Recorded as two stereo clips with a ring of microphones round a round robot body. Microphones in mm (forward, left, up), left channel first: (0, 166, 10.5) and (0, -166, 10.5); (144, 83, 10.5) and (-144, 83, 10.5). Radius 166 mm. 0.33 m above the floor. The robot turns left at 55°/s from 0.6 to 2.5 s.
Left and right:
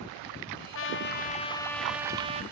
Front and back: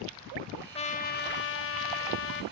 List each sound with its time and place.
0.8 s a trumpet: 60° left, 1.4 m; by 2.4 s 30° right, 1.4 m